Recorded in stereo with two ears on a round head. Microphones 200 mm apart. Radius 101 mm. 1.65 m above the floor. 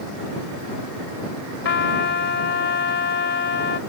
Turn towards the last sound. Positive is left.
turn(degrees=50)  # may be behind; listen again after turning